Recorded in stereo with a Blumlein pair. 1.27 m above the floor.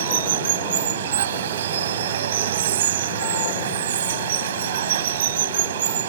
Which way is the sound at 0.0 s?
60° right.